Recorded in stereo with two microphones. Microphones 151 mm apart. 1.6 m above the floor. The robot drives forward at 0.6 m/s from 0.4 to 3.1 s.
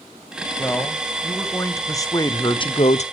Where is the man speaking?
10° left (ahead or behind), 1.8 m; by 3.0 s 50° left (ahead or behind), 0.5 m.